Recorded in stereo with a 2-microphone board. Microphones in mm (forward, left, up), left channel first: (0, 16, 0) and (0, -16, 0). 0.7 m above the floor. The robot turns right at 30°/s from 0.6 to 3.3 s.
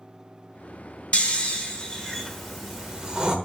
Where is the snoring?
140° left, 1.2 m; by 3.4 s 155° right, 1.2 m.